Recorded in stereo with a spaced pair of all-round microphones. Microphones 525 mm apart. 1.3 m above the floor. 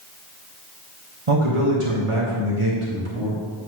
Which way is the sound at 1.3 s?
80° right.